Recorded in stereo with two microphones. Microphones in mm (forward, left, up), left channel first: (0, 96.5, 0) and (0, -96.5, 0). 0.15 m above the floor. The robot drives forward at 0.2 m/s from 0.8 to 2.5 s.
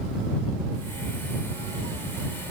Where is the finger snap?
I don't hear a finger snap.